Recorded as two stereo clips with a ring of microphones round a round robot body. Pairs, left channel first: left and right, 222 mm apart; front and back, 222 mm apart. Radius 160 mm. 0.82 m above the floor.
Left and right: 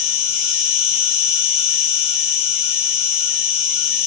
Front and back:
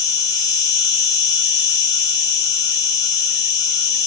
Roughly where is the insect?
Left.